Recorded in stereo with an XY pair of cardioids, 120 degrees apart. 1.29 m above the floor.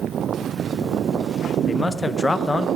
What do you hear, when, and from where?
1.7 s a man speaking: 20° left, 0.7 m